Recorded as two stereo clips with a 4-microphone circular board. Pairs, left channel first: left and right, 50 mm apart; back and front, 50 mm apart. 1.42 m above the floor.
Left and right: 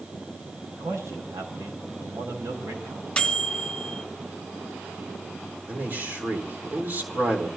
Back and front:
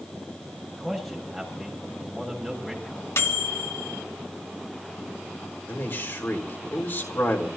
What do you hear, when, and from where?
0.7 s a man speaking: 90° right, 6.5 m
3.2 s a microwave: 160° left, 1.7 m
5.7 s a man speaking: 140° right, 4 m